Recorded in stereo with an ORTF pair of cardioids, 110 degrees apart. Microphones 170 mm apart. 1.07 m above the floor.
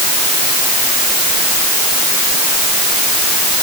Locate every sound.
Only background noise.